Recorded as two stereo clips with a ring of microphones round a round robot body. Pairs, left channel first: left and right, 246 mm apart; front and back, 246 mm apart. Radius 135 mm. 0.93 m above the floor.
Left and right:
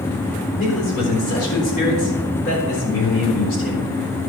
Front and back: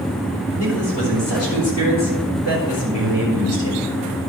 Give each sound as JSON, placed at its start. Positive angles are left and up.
{"t": 0.6, "sound": "a man speaking", "azimuth_deg": 35, "distance_m": 4.5}